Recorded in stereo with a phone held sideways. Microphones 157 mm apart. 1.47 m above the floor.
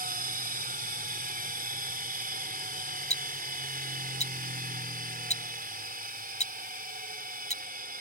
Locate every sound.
0.0 s a machine running: 70° right (ahead or behind)
3.1 s ticking: 45° left (ahead or behind)